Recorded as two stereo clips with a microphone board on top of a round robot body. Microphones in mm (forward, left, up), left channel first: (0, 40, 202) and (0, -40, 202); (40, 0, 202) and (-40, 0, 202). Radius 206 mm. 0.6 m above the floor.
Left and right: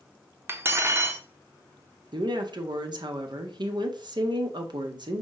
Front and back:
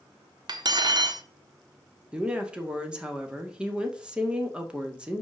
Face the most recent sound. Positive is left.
turn(degrees=-105)